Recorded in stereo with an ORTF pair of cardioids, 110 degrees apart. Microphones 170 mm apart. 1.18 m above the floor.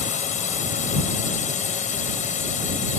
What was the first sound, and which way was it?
A drone, 45° left.